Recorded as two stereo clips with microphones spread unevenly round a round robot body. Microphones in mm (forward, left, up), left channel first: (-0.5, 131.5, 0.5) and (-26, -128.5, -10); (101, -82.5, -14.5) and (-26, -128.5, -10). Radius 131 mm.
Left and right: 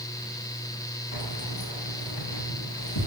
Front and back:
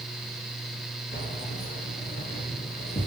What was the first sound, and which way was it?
Keys jangling, 65° left.